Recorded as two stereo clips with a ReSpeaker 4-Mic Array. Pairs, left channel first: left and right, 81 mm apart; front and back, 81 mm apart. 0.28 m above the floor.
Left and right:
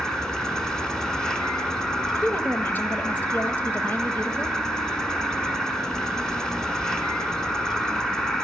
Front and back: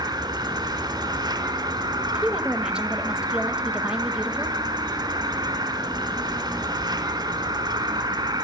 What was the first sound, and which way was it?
An insect, 170° left.